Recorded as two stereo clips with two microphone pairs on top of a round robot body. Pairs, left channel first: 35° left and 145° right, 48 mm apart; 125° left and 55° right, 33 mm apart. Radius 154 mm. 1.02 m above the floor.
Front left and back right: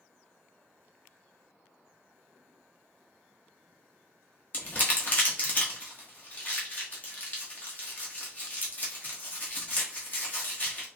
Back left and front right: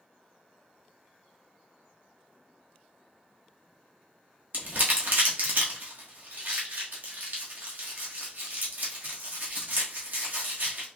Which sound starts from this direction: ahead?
Crumpling, at 4.5 s.